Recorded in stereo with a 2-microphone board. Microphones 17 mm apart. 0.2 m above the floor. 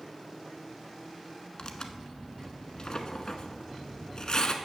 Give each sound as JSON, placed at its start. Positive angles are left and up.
{"t": 1.6, "sound": "tearing paper", "side_deg": 50, "distance_m": 0.8}